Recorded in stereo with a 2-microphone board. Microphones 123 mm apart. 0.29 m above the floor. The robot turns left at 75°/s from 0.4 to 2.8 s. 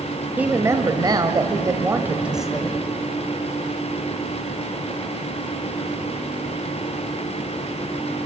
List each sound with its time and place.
0.4 s a woman speaking: 25° right, 1.1 m; by 2.8 s 160° left, 1.1 m